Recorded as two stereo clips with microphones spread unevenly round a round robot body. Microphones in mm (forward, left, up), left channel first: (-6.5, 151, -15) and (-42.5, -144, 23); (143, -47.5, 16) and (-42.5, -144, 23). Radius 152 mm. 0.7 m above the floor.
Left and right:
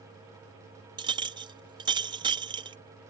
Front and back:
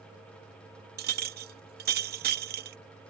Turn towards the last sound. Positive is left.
turn(degrees=-175)